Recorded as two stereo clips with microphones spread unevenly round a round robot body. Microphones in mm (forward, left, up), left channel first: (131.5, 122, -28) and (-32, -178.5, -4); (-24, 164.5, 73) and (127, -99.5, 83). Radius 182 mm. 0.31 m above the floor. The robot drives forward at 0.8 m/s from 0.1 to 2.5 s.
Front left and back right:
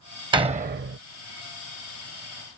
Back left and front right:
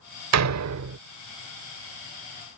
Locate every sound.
0.3 s a door slam: 40° right; by 1.0 s 80° right